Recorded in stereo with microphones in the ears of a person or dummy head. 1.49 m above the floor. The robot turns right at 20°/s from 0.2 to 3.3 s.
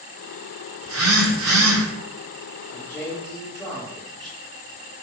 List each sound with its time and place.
0.8 s a phone buzzing: 70° right (ahead or behind), 0.8 m; by 1.9 s 65° right (ahead or behind), 0.8 m
2.7 s a man speaking: 20° left (ahead or behind), 1.0 m; by 4.3 s 5° left (ahead or behind), 1.0 m